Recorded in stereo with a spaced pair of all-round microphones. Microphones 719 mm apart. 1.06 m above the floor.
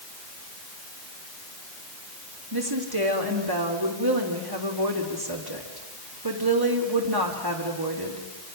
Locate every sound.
2.5 s a woman speaking: 30° right (ahead or behind), 3 m